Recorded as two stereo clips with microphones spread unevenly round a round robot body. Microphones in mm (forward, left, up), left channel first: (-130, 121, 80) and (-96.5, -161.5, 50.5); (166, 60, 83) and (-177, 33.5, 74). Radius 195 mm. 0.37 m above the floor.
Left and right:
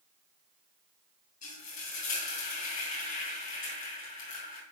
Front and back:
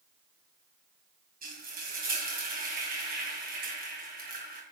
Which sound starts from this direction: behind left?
Frying, at 1.4 s.